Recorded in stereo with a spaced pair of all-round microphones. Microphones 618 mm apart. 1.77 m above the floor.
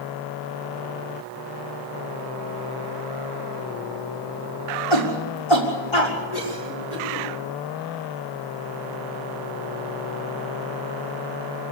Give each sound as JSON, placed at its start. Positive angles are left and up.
{"t": 4.9, "sound": "a shout", "side_deg": 45, "distance_m": 6.0}
{"t": 6.3, "sound": "a cough", "side_deg": 80, "distance_m": 6.0}